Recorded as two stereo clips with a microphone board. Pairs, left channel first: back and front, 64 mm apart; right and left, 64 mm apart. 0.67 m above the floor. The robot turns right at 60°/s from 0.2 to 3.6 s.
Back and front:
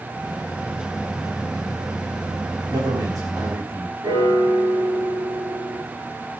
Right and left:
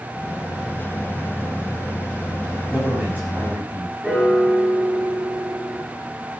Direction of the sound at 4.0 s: 10° left.